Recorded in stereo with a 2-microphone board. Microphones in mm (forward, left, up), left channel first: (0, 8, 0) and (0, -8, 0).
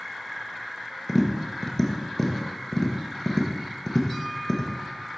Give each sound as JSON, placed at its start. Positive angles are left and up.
{"t": 1.1, "sound": "tapping", "side_deg": 20, "distance_m": 1.2}